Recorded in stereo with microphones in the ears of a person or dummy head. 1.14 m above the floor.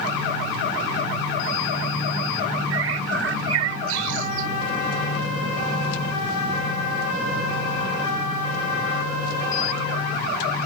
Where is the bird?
85° right.